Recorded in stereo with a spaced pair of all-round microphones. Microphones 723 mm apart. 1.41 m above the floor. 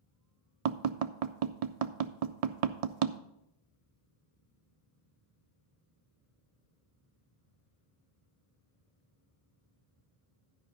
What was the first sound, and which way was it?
Tapping, 60° right (ahead or behind).